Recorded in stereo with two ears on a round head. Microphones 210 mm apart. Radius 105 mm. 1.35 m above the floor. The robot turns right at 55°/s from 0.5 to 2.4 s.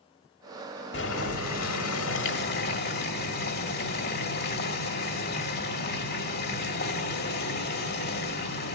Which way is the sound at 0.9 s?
50° left.